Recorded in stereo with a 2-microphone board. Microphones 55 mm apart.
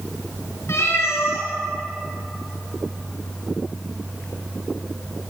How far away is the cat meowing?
About 3 m.